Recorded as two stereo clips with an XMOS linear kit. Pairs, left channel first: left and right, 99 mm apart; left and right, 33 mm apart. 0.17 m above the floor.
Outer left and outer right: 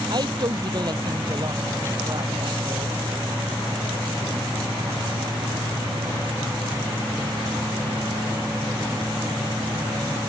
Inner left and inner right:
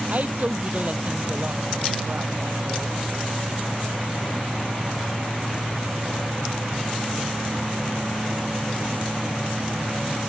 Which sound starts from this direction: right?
A woman speaking, at 0.1 s.